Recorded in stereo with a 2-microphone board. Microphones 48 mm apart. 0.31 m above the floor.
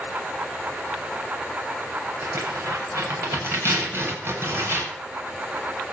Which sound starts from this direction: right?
Tearing paper, at 2.2 s.